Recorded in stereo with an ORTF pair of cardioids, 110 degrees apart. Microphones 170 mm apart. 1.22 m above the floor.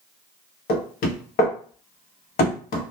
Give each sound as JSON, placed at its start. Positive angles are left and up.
{"t": 0.7, "sound": "knocking", "azimuth_deg": 60, "distance_m": 0.9}